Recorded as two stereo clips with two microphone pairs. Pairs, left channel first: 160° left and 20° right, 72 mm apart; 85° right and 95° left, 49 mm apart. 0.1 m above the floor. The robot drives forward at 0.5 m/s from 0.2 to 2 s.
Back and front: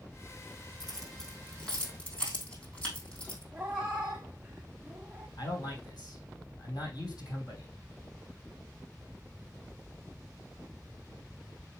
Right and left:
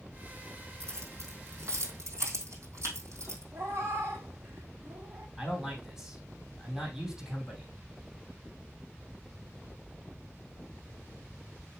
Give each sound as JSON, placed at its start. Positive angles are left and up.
{"t": 0.8, "sound": "keys jangling", "azimuth_deg": 75, "distance_m": 3.5}
{"t": 3.5, "sound": "a cat meowing", "azimuth_deg": 60, "distance_m": 1.1}
{"t": 5.4, "sound": "a man speaking", "azimuth_deg": 175, "distance_m": 4.0}